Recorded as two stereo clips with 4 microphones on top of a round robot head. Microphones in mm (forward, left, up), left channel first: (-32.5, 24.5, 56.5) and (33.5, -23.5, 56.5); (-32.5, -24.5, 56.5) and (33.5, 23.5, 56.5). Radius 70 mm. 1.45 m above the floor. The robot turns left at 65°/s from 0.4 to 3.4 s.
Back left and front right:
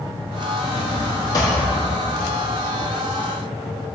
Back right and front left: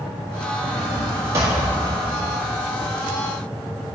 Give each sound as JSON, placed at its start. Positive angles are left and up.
{"t": 0.6, "sound": "a drawer", "azimuth_deg": 140, "distance_m": 1.1}